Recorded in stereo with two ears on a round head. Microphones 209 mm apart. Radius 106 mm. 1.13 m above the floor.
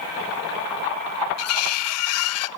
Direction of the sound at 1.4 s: 70° left (ahead or behind).